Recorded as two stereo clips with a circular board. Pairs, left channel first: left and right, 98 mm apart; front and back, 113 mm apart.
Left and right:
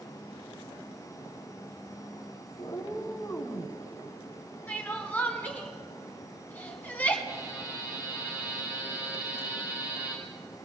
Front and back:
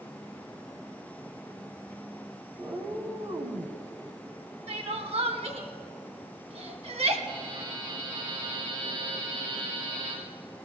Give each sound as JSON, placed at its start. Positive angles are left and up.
{"t": 2.6, "sound": "a cat meowing", "azimuth_deg": 125, "distance_m": 1.3}
{"t": 4.7, "sound": "crying", "azimuth_deg": 160, "distance_m": 1.4}
{"t": 7.3, "sound": "a buzzer", "azimuth_deg": -155, "distance_m": 5.5}